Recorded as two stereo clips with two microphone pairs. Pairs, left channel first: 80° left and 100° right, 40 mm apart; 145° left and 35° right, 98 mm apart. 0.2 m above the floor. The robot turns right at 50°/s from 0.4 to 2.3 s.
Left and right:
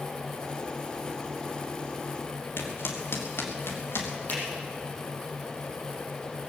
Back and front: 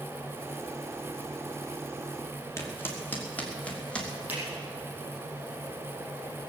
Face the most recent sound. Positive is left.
turn(degrees=40)